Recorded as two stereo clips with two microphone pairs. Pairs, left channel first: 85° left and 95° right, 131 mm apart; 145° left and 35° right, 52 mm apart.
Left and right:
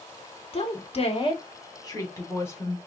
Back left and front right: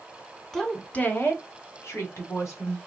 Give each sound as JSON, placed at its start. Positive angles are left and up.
{"t": 0.5, "sound": "a woman speaking", "azimuth_deg": 60, "distance_m": 1.0}